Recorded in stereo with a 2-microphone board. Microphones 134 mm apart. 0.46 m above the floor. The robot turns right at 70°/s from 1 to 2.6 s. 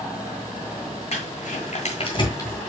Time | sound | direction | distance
1.1 | crumpling | 60° left (ahead or behind) | 2.0 m